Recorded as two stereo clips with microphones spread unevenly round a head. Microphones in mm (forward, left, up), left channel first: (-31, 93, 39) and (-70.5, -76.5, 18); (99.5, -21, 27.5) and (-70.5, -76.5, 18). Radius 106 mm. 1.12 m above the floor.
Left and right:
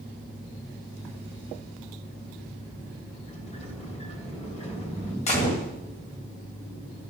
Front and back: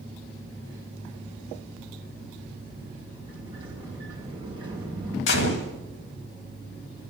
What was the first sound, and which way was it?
A sliding door, 130° left.